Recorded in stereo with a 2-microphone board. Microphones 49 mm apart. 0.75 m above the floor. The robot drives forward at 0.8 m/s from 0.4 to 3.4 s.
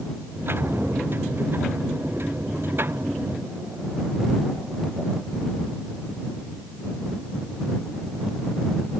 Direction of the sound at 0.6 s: 70° right (ahead or behind).